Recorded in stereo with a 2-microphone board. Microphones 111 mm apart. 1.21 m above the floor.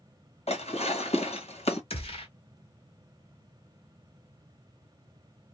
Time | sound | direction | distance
0.5 | dishes clattering | 70° left (ahead or behind) | 1.2 m
1.9 | a gunshot | 60° left (ahead or behind) | 1.3 m